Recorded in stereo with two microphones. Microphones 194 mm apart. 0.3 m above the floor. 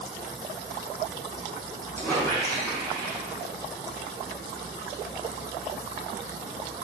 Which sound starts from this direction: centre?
A squeak, at 2.0 s.